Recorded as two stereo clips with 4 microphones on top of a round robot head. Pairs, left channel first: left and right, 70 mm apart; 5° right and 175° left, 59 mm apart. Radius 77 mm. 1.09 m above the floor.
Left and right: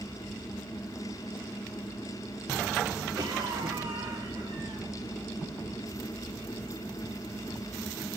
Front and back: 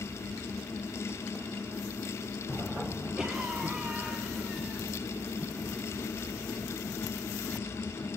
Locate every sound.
3.2 s a cough: 105° right, 3 m